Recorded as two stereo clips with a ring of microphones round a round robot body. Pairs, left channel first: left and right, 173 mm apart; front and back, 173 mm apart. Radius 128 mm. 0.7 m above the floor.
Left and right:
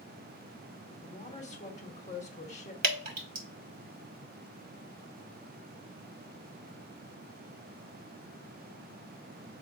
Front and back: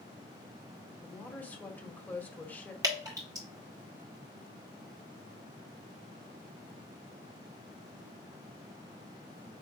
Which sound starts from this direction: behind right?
Dripping, at 2.8 s.